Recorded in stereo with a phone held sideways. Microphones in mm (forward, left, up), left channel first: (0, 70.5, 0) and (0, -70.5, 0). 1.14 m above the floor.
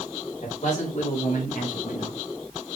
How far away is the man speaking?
About 4 m.